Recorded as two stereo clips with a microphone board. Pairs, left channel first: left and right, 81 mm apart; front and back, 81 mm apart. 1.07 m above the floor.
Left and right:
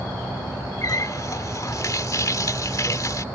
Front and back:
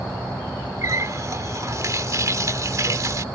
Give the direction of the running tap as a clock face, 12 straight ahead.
8 o'clock.